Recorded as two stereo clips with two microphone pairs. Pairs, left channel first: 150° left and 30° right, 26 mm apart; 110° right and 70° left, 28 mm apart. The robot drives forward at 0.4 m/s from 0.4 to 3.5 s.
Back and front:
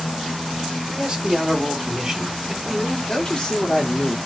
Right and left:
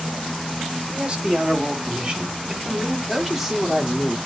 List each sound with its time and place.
0.9 s a man speaking: 20° left, 2 m; by 3.0 s 40° left, 1.5 m
3.1 s a man speaking: 130° left, 1.4 m; by 4.2 s 140° left, 1.4 m